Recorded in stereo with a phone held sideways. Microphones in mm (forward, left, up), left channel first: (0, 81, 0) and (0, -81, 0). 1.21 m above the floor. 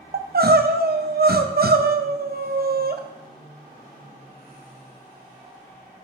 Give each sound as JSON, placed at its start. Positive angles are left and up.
{"t": 0.1, "sound": "crying", "side_deg": -75, "distance_m": 0.6}